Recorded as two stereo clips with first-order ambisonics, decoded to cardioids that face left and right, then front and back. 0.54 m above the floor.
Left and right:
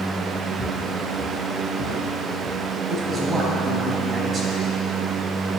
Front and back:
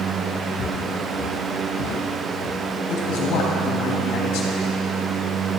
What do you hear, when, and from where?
0.6 s footsteps: 5° right, 3.5 m; by 2.6 s 20° right, 4 m
2.9 s a man speaking: 25° right, 3 m